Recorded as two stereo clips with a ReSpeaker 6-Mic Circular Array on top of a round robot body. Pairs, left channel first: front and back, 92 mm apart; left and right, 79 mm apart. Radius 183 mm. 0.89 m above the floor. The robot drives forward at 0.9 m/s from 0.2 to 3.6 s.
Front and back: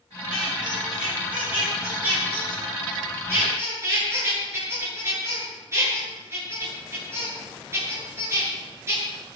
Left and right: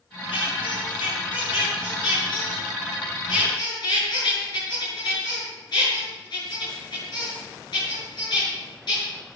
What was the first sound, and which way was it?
A squeak, 95° left.